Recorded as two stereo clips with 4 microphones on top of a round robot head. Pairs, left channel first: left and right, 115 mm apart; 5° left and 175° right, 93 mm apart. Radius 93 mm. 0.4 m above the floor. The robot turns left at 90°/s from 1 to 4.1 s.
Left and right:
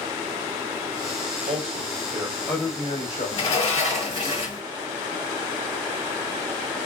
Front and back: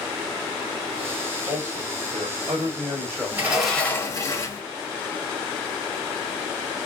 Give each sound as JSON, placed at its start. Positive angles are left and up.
{"t": 1.5, "sound": "a man speaking", "azimuth_deg": -90, "distance_m": 2.5}
{"t": 3.3, "sound": "a sliding door", "azimuth_deg": 125, "distance_m": 2.0}